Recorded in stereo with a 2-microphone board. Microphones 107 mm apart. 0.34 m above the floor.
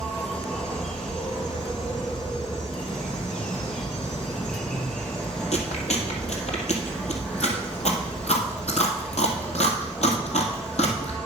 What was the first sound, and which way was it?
An insect, 10° left (ahead or behind).